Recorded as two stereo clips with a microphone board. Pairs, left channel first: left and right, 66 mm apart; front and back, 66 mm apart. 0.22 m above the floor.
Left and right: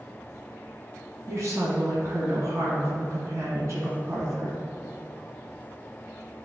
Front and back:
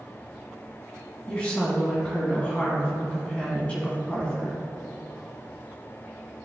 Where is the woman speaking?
65° right, 1.7 m.